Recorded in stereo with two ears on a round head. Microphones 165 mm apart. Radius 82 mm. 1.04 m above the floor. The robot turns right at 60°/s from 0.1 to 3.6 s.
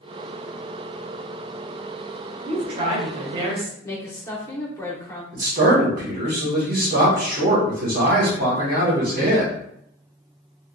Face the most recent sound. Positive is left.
turn(degrees=-50)  # may be behind; listen again after turning